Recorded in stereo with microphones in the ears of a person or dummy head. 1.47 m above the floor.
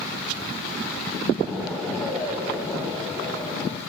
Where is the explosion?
Centre (ahead or behind), 1.5 m.